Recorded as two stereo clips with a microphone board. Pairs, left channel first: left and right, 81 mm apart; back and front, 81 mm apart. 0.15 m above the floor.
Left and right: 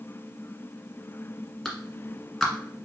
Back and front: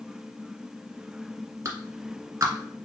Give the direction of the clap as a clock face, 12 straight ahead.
12 o'clock.